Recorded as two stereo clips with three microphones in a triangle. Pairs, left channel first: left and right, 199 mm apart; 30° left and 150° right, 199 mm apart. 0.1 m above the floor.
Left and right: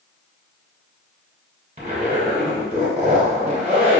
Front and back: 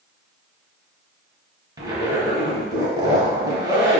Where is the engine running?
I don't hear an engine running.